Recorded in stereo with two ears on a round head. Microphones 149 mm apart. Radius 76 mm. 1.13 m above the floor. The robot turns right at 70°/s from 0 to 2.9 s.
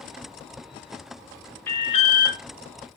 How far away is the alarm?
About 0.9 m.